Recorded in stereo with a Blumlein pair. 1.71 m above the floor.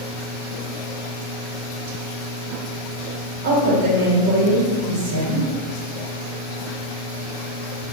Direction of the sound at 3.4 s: 55° right.